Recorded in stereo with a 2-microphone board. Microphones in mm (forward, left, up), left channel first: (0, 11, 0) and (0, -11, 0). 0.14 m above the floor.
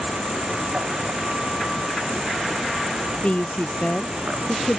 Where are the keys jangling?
No keys jangling in this recording.